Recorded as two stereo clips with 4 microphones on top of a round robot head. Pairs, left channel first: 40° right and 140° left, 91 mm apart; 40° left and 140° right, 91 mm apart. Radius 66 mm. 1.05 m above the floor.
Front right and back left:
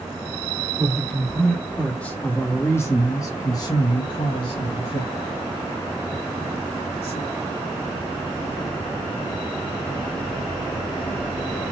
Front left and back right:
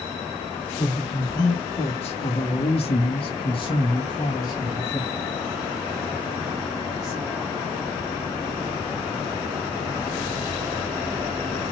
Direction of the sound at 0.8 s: 50° left.